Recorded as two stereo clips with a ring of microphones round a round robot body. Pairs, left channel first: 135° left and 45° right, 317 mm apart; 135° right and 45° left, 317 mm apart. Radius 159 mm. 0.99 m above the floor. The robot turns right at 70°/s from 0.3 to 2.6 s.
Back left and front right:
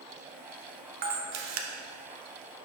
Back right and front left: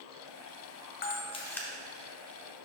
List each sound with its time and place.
1.0 s a camera shutter: 90° right, 0.6 m; by 1.7 s 45° right, 0.6 m